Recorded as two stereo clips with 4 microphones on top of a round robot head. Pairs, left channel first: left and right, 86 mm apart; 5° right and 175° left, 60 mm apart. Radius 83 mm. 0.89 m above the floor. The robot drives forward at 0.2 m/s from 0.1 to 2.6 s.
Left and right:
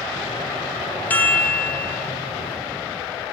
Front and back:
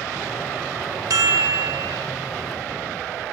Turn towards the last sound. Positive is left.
turn(degrees=165)